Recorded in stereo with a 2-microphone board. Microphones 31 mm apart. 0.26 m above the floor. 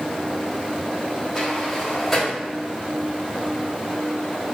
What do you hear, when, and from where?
1.4 s a sliding door: 5° left (ahead or behind), 1.4 m